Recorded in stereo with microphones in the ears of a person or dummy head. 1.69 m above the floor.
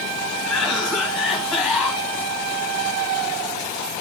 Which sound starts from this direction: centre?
A cough, at 0.4 s.